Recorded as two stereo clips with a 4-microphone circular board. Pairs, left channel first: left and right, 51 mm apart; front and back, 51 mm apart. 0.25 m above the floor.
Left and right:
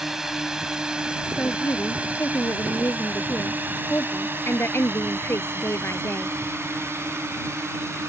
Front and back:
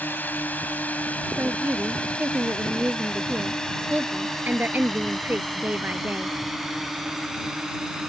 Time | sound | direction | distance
0.0 | a drone | 10° right | ?
1.4 | a woman speaking | 125° left | ?